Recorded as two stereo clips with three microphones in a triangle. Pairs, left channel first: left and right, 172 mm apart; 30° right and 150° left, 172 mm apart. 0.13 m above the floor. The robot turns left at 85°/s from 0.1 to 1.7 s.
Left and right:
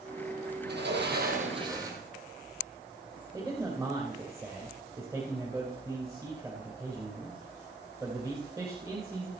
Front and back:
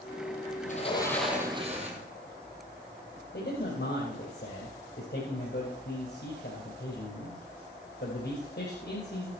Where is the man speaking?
20° right, 3.5 m.